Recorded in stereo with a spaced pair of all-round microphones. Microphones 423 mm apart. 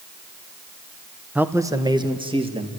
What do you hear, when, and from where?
1.4 s a man speaking: 5° right (ahead or behind), 1.0 m; by 2.7 s 15° right (ahead or behind), 2.5 m